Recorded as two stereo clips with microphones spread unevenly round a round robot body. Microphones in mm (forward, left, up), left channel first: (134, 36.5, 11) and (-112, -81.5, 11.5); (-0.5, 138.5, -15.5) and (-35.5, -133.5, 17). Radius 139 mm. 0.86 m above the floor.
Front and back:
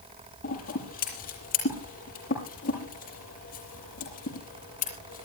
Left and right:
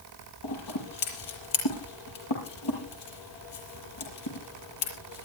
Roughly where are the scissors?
Left.